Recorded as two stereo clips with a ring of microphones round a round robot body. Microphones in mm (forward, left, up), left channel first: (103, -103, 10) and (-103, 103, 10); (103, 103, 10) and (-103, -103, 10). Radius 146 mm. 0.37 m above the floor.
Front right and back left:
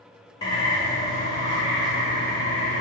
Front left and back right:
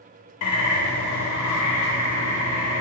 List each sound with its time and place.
0.4 s a bird: 30° left, 0.5 m